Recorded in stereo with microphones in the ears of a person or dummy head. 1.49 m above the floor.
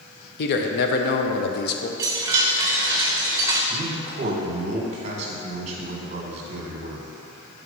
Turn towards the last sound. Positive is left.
turn(degrees=-35)  # may be behind; listen again after turning